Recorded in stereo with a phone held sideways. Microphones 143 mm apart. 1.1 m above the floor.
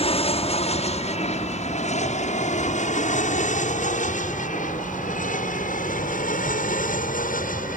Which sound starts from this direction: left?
An aircraft, at 0.0 s.